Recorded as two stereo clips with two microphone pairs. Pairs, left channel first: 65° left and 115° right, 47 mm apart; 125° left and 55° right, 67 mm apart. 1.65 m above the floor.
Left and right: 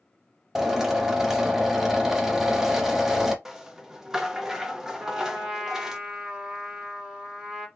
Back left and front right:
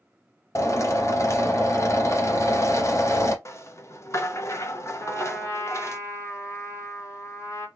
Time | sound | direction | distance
0.6 | a drill | 165° left | 0.9 m
3.5 | a rattle | 170° left | 0.6 m
5.0 | a trumpet | 175° left | 2.0 m